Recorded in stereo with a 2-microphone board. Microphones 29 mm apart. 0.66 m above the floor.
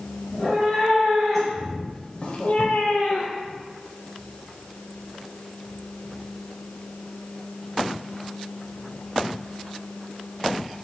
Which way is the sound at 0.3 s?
5° right (ahead or behind).